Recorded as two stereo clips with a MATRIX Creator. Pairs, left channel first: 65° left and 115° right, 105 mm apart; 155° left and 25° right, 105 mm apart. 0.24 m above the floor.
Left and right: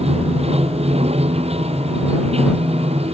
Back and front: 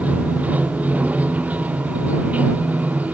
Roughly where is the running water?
Right.